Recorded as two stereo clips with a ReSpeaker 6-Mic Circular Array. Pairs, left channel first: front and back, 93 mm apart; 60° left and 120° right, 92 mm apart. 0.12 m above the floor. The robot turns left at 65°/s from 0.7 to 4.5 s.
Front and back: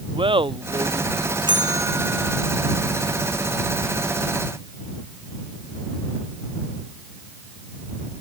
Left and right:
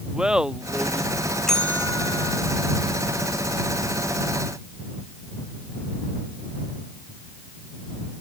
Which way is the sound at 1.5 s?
145° left.